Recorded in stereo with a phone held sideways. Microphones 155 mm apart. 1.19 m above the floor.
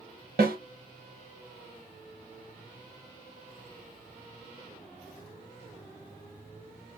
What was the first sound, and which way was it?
A snare drum, 85° right.